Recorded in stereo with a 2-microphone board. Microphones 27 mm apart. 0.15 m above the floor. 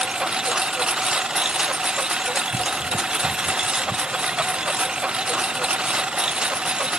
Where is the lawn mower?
30° right (ahead or behind); by 7.0 s 35° right (ahead or behind).